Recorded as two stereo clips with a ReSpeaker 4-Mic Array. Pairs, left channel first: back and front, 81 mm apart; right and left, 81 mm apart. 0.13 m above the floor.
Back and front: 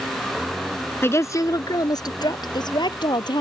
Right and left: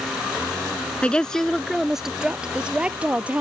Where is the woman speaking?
150° right; by 3.4 s 160° left.